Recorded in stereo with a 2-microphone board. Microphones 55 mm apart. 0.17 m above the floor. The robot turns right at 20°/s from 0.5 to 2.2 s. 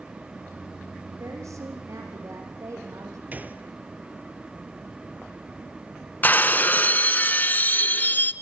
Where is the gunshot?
35° right (ahead or behind), 1.4 m.